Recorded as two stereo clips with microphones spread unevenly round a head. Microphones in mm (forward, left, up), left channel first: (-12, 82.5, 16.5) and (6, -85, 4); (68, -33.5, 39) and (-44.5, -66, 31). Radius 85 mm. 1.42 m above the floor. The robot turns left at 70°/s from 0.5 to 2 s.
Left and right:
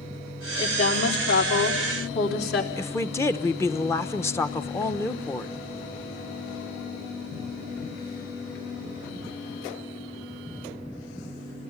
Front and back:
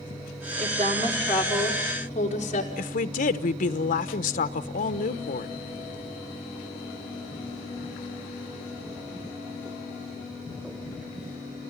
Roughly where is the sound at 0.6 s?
Behind.